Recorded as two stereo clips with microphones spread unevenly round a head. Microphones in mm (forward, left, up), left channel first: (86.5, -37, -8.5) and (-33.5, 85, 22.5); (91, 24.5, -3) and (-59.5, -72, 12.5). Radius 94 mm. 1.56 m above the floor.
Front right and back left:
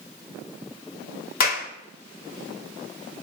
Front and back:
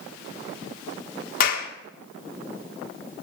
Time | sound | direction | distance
1.4 | a clap | 10° right | 2 m